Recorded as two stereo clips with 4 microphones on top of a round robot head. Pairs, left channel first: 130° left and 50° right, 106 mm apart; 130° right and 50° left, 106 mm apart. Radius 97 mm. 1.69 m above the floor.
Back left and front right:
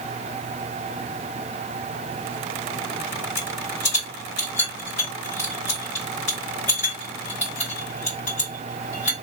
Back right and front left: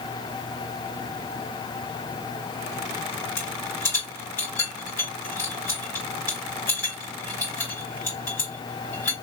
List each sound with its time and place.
3.4 s a rattle: 155° left, 3 m